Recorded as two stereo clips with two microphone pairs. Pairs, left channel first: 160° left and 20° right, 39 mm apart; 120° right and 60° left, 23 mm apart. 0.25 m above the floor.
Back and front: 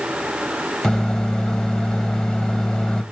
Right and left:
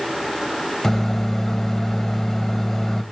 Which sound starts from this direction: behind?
A microwave, at 0.8 s.